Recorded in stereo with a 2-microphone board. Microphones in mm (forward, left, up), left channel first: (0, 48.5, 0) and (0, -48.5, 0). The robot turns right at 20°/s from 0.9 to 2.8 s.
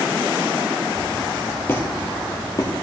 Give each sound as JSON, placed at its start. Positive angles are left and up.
{"t": 1.7, "sound": "a squeak", "side_deg": 20, "distance_m": 2.5}